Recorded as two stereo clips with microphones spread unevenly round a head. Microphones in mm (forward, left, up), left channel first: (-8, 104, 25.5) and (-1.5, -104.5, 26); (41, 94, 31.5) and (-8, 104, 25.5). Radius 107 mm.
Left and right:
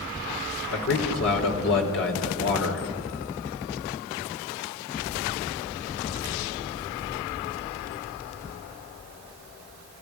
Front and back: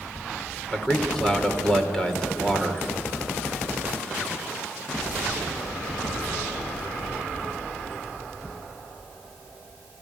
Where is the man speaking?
65° left, 4 m.